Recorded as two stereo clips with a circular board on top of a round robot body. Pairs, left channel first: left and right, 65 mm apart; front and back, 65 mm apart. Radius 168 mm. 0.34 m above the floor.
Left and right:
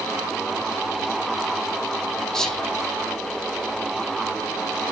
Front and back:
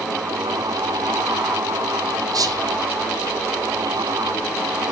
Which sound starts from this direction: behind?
Whispering, at 2.3 s.